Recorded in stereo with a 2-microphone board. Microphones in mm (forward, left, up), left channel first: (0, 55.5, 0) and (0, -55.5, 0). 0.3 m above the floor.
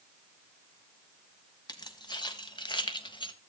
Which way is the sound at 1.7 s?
40° left (ahead or behind).